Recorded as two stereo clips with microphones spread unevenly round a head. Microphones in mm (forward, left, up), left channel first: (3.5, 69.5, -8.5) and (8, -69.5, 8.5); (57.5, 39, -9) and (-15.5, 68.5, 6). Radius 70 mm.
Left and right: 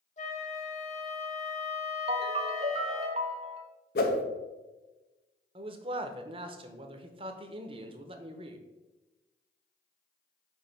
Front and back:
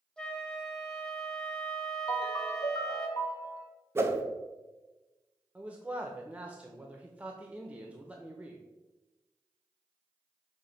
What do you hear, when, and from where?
0.2 s a flute: 60° left, 1.8 m
2.1 s a ringtone: 70° right, 0.8 m
4.0 s a whoosh: 100° left, 1.0 m
5.5 s a man speaking: 130° right, 0.8 m